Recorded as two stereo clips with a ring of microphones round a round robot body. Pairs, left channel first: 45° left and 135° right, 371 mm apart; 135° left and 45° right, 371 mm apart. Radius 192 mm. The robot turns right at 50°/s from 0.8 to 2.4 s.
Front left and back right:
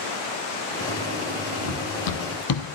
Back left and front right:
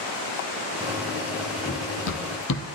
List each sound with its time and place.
1.6 s running footsteps: 65° left, 1.7 m; by 2.6 s 70° left, 0.9 m